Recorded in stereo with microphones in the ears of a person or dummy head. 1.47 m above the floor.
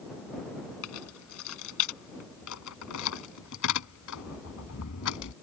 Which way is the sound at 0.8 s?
85° left.